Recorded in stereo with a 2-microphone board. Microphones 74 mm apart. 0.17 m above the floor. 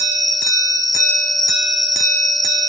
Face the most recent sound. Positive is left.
turn(degrees=70)  # may be behind; listen again after turning